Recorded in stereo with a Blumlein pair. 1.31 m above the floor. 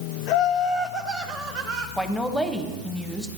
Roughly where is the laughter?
Ahead left.